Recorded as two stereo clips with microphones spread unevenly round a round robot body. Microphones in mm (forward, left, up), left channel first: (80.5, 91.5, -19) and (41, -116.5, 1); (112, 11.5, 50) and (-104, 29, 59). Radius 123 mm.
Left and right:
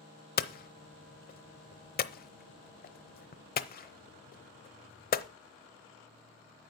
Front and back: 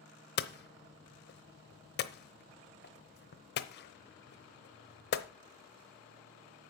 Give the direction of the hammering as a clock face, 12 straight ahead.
11 o'clock.